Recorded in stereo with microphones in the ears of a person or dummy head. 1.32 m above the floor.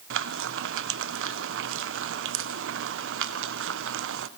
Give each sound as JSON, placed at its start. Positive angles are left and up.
{"t": 0.1, "sound": "frying", "side_deg": -60, "distance_m": 0.7}